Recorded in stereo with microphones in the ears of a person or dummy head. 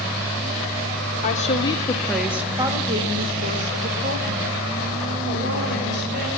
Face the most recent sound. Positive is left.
turn(degrees=-55)  # may be behind; listen again after turning